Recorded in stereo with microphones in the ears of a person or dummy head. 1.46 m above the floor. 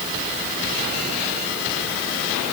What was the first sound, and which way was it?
Only background noise.